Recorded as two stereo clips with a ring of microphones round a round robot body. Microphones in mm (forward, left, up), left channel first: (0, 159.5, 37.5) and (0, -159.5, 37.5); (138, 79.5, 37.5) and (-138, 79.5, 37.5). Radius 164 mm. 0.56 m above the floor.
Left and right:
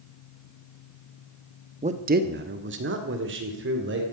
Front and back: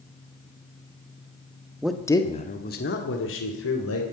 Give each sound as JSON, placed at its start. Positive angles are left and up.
{"t": 1.8, "sound": "a man speaking", "azimuth_deg": -100, "distance_m": 1.1}